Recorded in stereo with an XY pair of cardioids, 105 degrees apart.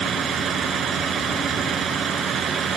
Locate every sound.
0.0 s a vehicle: 55° right